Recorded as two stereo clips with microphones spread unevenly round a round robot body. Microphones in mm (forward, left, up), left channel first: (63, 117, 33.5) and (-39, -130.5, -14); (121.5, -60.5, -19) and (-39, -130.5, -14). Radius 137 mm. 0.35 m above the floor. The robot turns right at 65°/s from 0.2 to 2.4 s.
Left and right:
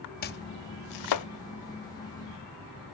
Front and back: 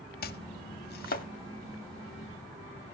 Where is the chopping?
10° left, 0.9 m; by 1.3 s 75° left, 0.9 m.